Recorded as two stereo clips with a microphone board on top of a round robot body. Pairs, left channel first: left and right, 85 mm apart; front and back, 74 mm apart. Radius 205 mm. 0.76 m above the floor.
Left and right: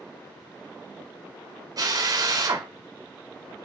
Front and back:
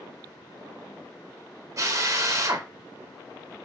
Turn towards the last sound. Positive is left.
turn(degrees=-135)